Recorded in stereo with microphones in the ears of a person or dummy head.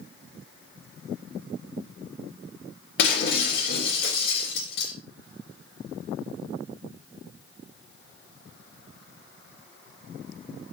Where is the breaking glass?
60° left (ahead or behind), 3.5 m.